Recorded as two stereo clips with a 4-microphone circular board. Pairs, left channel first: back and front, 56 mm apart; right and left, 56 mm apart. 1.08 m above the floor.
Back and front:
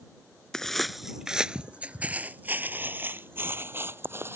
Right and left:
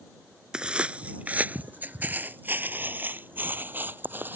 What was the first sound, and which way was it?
Footsteps, 125° left.